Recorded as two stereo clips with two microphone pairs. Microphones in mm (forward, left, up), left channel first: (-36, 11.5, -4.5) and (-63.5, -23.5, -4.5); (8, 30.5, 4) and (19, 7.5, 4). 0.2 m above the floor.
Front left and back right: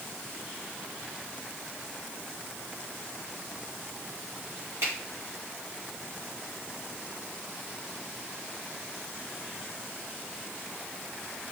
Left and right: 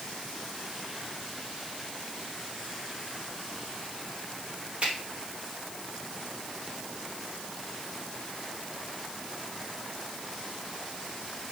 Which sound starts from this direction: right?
A finger snap, at 4.8 s.